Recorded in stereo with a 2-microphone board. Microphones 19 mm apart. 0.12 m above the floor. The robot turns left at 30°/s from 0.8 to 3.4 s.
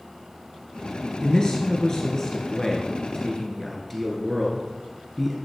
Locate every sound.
1.2 s a man speaking: 75° left, 2.5 m; by 5.4 s 10° left, 2.5 m